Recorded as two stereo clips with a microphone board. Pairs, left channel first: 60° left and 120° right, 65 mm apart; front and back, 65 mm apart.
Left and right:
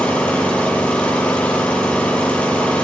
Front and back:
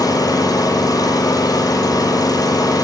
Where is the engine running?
15° right, 8 m.